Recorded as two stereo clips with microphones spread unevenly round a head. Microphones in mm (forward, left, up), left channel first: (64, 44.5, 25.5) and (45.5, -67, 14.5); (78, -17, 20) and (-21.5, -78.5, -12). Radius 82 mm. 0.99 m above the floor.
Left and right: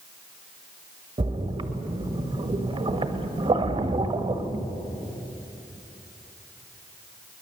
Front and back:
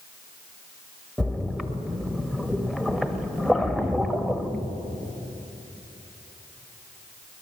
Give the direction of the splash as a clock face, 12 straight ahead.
2 o'clock.